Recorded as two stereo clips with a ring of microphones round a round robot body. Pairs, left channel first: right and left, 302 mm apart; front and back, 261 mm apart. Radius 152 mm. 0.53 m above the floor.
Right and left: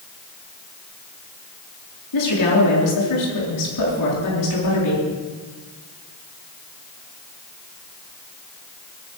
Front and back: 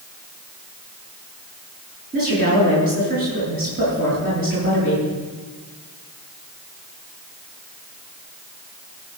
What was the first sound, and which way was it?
A woman speaking, 115° right.